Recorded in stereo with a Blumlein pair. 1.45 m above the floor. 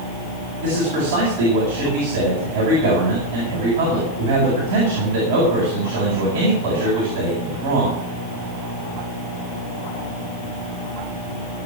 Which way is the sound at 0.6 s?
55° right.